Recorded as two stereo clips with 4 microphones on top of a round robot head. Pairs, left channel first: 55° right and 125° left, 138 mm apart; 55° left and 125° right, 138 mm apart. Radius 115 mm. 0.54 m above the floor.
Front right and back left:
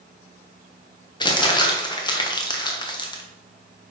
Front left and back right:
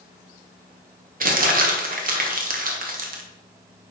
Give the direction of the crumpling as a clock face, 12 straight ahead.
4 o'clock.